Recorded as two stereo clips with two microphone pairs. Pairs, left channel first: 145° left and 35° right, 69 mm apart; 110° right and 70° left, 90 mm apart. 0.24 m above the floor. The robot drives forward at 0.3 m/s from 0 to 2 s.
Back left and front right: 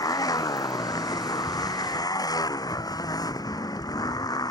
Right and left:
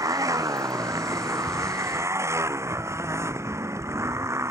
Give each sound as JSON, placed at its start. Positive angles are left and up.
{"t": 0.0, "sound": "a motorcycle", "azimuth_deg": 120}